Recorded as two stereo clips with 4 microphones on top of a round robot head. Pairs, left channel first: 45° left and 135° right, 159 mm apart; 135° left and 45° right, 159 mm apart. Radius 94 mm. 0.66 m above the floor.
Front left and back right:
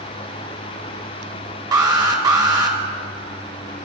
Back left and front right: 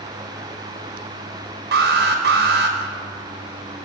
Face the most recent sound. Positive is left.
turn(degrees=-65)